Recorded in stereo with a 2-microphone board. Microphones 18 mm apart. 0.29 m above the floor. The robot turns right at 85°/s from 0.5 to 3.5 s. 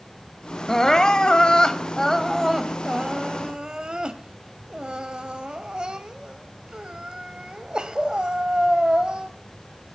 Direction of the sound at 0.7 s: 30° left.